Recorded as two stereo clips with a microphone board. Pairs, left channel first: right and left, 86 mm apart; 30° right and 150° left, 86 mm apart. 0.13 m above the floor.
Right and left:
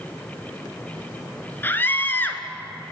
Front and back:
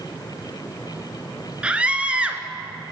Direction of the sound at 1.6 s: 140° right.